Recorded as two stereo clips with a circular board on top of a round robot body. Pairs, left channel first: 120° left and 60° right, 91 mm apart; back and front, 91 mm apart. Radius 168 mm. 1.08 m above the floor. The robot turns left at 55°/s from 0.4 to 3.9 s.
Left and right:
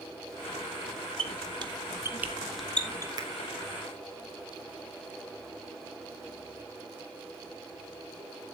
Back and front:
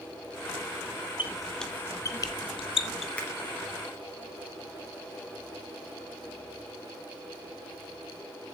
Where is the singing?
No singing in this recording.